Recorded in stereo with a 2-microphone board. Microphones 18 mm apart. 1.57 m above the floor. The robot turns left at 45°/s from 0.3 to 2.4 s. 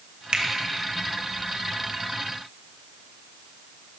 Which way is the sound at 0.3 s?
65° right (ahead or behind).